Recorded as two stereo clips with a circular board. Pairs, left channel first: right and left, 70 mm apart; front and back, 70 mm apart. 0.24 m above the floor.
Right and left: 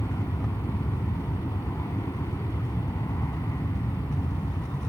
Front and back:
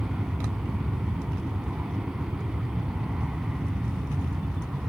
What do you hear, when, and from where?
0.0 s an aircraft: 100° right